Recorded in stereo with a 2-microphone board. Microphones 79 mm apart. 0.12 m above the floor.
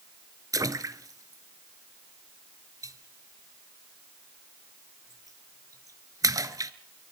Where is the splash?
50° right (ahead or behind), 0.9 m.